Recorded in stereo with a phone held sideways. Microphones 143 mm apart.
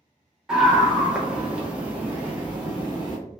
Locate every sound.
0.5 s a scream: 5° right (ahead or behind), 1.1 m; by 3.2 s 10° right (ahead or behind), 0.9 m